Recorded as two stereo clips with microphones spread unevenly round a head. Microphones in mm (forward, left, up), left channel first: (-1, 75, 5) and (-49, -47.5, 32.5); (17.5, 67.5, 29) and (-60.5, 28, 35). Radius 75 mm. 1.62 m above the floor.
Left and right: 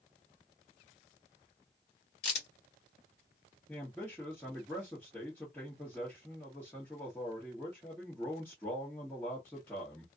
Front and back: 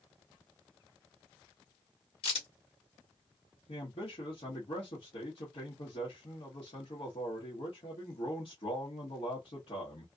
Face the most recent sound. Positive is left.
turn(degrees=-10)